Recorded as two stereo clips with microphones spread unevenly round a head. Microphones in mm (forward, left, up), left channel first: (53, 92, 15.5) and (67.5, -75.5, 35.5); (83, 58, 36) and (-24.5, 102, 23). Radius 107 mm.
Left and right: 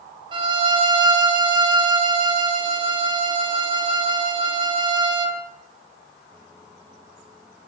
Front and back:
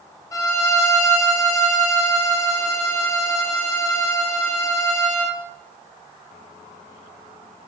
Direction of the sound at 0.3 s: 50° right.